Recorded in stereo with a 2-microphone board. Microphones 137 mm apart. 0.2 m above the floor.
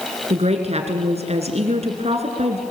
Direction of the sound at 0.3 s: 50° right (ahead or behind).